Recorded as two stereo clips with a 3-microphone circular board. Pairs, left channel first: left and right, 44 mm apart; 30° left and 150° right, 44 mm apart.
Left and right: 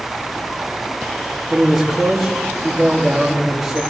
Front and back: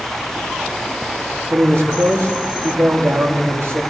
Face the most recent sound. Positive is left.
turn(degrees=-175)